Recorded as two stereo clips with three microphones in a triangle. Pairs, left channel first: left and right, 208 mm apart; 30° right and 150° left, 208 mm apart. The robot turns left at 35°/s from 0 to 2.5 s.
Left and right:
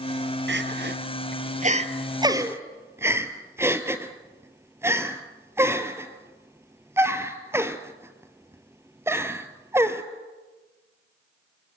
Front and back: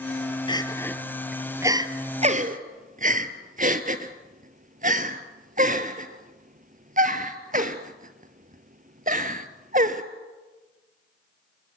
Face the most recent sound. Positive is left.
turn(degrees=-165)